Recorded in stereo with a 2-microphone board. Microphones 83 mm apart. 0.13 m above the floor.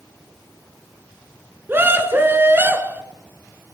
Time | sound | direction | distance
1.7 | a scream | 25° right (ahead or behind) | 1.4 m